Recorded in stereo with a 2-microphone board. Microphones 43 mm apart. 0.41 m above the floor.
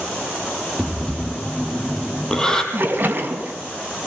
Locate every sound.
0.8 s breathing: 15° left (ahead or behind), 4.5 m
2.7 s a splash: 45° right (ahead or behind), 4 m